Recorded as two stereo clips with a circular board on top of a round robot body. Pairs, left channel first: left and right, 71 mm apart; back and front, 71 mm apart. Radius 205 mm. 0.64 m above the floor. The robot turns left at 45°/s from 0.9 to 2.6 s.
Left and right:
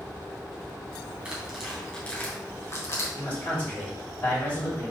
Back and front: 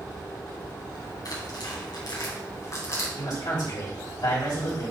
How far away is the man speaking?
About 3.5 m.